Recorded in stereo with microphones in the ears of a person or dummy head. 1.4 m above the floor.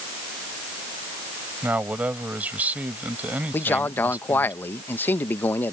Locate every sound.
1.6 s a man speaking: 10° right (ahead or behind)
3.5 s a man speaking: 15° left (ahead or behind)